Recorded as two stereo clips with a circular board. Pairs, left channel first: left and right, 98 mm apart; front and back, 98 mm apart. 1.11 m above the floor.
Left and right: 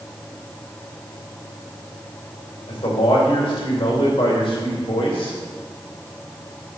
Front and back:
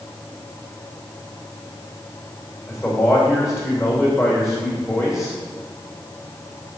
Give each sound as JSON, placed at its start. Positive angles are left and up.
{"t": 2.7, "sound": "a man speaking", "azimuth_deg": 60, "distance_m": 2.5}